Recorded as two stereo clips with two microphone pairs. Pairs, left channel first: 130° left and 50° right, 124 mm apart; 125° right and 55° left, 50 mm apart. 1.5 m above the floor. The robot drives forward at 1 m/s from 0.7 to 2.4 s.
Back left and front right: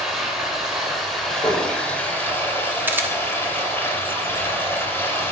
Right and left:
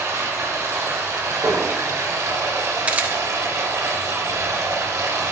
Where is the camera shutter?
15° left, 1.1 m.